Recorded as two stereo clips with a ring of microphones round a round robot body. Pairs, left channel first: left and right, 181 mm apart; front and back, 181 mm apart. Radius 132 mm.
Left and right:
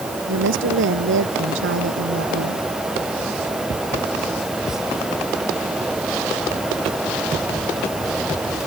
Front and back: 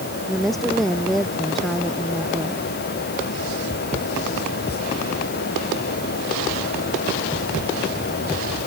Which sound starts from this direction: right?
A woman speaking, at 0.3 s.